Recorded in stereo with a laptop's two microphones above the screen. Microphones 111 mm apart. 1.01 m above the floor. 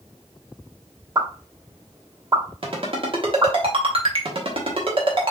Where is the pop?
30° right (ahead or behind), 1.4 m.